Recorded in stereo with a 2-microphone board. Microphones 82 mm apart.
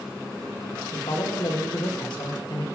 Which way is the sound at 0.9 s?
70° left (ahead or behind).